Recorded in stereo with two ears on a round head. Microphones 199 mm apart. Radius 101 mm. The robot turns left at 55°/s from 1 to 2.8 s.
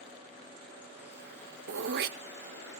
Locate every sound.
1.7 s throat clearing: 65° right (ahead or behind), 0.8 m; by 2.2 s 40° right (ahead or behind), 0.8 m